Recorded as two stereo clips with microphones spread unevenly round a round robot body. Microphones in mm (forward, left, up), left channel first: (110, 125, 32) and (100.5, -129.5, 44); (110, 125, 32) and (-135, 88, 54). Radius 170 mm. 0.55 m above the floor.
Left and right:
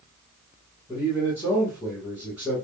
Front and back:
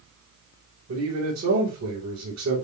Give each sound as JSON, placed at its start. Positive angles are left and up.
{"t": 0.9, "sound": "a man speaking", "azimuth_deg": -175, "distance_m": 3.5}